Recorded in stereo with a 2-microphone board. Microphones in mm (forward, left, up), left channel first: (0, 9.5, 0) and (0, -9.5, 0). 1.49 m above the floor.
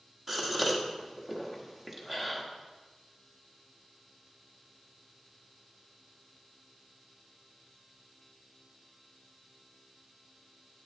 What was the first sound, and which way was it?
A gasp, 15° right (ahead or behind).